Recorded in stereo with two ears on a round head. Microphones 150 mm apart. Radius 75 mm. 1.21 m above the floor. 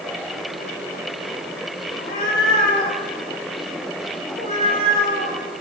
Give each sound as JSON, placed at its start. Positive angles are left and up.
{"t": 1.9, "sound": "a cat meowing", "side_deg": 65, "distance_m": 8.0}